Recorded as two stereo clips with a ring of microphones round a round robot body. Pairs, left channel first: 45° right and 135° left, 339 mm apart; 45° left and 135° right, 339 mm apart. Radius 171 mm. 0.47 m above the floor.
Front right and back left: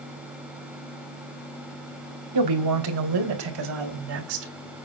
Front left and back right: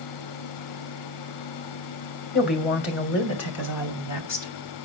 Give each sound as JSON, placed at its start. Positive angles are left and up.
{"t": 2.3, "sound": "a woman speaking", "azimuth_deg": 105, "distance_m": 2.5}